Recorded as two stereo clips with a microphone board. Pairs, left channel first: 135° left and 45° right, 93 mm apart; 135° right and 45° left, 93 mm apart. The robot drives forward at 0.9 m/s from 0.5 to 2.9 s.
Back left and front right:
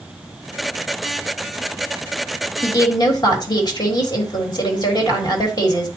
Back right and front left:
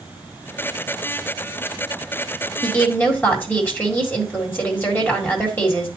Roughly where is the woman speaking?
Behind left.